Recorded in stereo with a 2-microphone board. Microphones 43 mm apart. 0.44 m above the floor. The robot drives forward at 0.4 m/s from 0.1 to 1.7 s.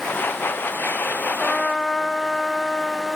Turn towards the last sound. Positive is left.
turn(degrees=20)  # may be behind; listen again after turning